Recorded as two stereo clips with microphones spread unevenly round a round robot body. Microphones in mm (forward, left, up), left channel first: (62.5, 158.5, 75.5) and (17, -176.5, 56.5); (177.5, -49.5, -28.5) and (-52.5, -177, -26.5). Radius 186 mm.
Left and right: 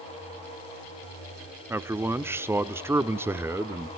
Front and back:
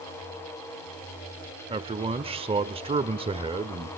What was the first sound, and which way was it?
A man speaking, 155° right.